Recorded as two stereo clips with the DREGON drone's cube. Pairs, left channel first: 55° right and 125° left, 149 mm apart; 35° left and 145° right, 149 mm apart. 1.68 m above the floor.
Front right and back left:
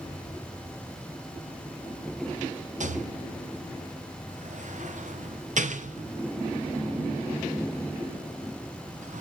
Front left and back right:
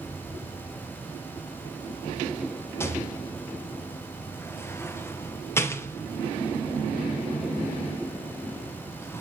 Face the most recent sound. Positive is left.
turn(degrees=105)